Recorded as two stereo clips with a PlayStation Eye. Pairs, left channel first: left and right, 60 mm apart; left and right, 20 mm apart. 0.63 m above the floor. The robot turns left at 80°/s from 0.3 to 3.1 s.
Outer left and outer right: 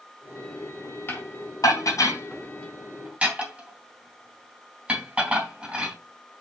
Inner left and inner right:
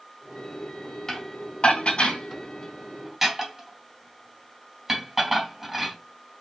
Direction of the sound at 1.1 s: 40° left (ahead or behind).